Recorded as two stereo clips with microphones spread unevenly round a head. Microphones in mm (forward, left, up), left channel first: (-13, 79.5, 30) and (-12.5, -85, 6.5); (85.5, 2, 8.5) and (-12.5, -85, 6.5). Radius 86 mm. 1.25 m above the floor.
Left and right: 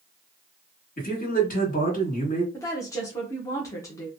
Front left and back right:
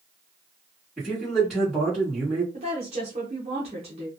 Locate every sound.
1.0 s a man speaking: 130° left, 1.7 m
2.5 s a woman speaking: 165° left, 0.8 m